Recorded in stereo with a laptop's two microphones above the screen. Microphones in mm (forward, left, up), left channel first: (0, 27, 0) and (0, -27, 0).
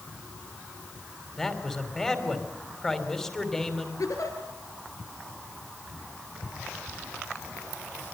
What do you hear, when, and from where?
1.4 s a man speaking: 10° left (ahead or behind), 3 m
4.0 s a giggle: 75° left (ahead or behind), 5 m